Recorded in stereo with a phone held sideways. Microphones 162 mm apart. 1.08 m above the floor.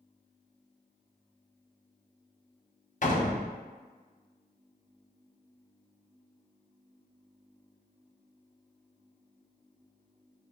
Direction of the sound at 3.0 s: 50° left (ahead or behind).